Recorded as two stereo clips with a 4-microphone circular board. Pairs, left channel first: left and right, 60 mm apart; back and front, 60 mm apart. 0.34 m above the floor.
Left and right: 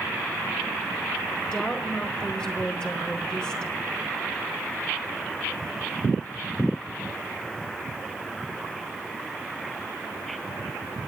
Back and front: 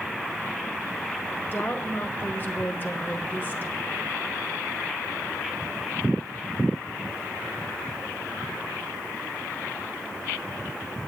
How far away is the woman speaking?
About 1.2 m.